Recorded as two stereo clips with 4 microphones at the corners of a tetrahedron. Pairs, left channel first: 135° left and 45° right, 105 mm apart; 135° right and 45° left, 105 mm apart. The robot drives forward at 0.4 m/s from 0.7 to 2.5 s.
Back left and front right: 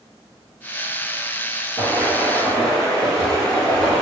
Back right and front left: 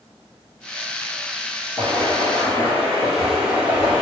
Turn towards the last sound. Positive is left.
turn(degrees=65)